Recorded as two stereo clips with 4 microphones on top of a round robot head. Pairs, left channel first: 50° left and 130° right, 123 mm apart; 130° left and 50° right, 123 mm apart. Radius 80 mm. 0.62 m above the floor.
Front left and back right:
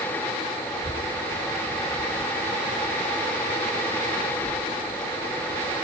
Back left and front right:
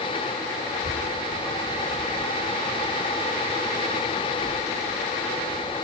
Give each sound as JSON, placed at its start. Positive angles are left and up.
{"t": 0.7, "sound": "a child speaking", "azimuth_deg": 100, "distance_m": 3.0}